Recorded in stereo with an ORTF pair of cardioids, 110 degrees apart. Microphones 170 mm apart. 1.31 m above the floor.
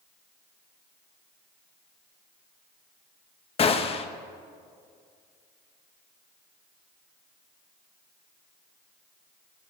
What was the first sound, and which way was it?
A gunshot, 35° left.